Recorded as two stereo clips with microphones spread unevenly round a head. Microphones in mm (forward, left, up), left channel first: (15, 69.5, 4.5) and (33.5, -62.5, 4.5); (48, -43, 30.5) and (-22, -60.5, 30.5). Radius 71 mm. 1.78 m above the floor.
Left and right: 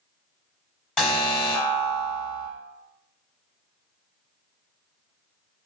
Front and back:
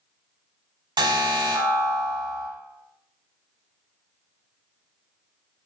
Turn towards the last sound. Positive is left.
turn(degrees=180)